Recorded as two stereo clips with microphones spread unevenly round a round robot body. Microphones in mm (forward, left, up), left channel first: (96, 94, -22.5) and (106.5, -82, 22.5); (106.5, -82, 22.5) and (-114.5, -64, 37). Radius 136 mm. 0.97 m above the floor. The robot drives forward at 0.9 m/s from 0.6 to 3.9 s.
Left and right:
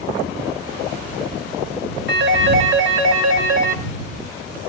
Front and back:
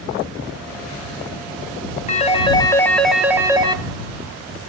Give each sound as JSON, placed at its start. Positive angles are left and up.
{"t": 2.1, "sound": "a phone ringing", "azimuth_deg": -60, "distance_m": 1.7}